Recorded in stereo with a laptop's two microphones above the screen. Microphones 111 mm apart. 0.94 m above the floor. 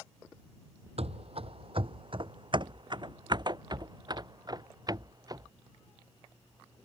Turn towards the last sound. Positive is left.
turn(degrees=-35)  # may be behind; listen again after turning